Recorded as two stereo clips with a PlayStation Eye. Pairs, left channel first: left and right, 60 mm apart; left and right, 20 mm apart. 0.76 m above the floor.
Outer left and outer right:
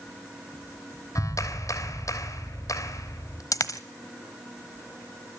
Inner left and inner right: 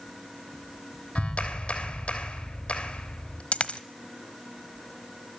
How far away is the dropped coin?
About 1.2 m.